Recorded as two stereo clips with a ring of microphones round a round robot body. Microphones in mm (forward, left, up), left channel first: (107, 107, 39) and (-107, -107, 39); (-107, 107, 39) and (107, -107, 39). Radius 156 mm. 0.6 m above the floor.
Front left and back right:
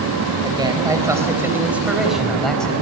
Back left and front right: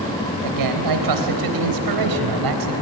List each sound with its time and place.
0.4 s a man speaking: 60° right, 3.5 m; by 2.8 s 40° right, 4 m